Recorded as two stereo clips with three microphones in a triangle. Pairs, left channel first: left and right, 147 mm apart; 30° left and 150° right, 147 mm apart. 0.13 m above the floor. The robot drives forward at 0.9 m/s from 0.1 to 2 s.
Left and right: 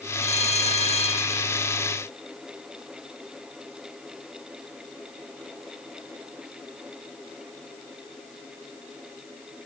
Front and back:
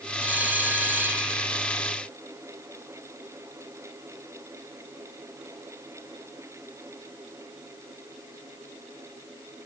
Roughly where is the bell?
Behind left.